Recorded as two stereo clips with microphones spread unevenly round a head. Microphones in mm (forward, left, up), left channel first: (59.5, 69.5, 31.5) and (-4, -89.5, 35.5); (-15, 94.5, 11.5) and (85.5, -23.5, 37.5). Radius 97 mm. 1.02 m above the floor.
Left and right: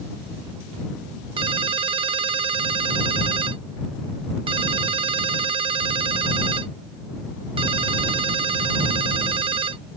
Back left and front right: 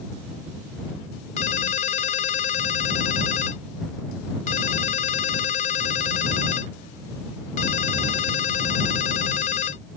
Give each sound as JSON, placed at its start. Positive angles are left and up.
{"t": 1.4, "sound": "a ringtone", "azimuth_deg": -175}